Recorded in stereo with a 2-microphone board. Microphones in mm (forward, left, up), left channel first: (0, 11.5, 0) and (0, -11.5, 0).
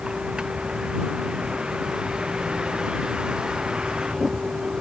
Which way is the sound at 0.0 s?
45° right (ahead or behind).